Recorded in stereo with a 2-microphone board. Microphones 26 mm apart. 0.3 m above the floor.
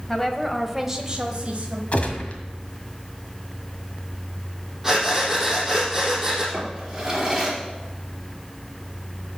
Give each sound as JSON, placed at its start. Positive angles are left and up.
{"t": 0.1, "sound": "a woman speaking", "side_deg": 15, "distance_m": 1.6}
{"t": 1.9, "sound": "a gunshot", "side_deg": 55, "distance_m": 1.7}
{"t": 4.8, "sound": "breathing", "side_deg": -10, "distance_m": 4.5}
{"t": 6.5, "sound": "a drawer", "side_deg": -15, "distance_m": 4.0}